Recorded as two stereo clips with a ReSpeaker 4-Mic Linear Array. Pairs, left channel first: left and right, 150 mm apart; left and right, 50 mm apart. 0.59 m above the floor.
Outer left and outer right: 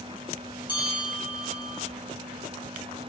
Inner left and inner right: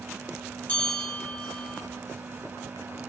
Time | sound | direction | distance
0.7 | a bell | 30° left (ahead or behind) | 0.8 m